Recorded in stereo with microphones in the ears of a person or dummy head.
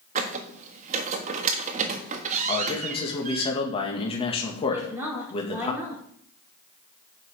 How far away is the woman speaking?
About 4.5 m.